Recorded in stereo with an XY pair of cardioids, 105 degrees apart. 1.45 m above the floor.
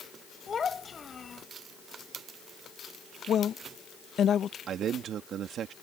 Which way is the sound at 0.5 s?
35° left.